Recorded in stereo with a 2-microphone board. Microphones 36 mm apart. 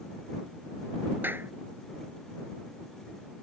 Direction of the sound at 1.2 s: 65° right (ahead or behind).